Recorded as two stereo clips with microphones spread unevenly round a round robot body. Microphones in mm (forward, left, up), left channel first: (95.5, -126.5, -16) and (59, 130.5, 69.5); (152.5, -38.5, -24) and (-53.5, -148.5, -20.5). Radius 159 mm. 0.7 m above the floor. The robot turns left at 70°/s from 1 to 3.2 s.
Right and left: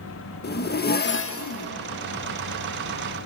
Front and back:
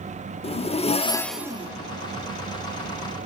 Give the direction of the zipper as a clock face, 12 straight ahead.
1 o'clock.